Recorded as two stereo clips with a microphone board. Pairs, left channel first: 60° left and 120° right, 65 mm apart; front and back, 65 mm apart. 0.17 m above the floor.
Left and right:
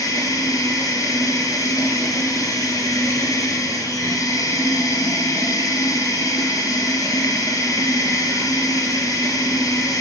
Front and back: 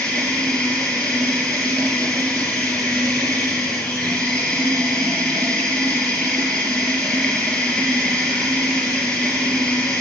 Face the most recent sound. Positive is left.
turn(degrees=75)